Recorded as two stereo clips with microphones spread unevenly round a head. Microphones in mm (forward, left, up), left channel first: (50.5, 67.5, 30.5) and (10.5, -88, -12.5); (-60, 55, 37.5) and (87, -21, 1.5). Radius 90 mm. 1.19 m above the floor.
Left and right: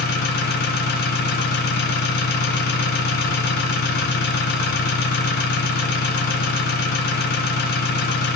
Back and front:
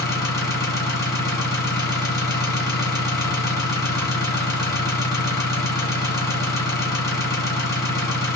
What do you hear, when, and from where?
0.0 s an engine running: 85° left, 1.3 m